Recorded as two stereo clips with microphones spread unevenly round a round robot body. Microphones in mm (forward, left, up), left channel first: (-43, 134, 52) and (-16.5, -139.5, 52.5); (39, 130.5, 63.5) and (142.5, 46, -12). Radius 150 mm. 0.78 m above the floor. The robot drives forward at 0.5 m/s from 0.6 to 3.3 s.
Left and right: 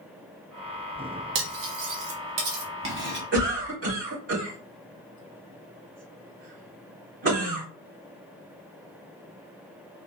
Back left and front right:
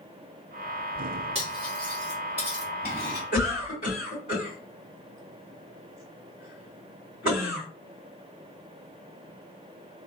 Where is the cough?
140° right, 2.5 m.